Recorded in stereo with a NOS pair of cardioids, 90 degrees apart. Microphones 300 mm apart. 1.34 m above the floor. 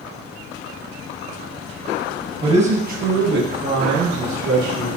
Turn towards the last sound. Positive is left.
turn(degrees=-60)